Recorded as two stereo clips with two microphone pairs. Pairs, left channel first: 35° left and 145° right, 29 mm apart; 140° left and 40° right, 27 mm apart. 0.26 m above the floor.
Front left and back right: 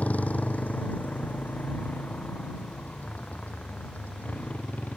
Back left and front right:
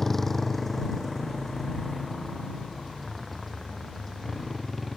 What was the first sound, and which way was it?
A motorcycle, 60° left.